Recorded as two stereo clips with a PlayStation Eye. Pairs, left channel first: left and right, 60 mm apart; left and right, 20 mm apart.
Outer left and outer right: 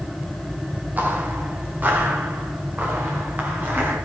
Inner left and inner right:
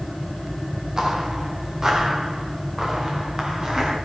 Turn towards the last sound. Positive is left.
turn(degrees=-30)  # may be behind; listen again after turning